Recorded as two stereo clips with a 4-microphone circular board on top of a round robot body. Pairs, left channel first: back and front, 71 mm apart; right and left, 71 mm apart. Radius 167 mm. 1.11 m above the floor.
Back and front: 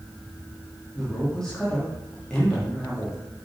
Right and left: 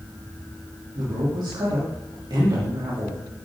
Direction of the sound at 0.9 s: 100° left.